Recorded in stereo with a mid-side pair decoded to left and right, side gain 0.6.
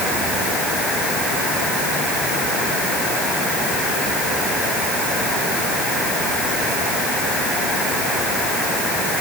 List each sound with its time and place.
Only background noise.